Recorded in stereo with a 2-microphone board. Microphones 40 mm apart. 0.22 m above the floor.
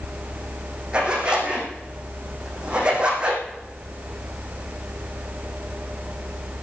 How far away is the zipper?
About 5 m.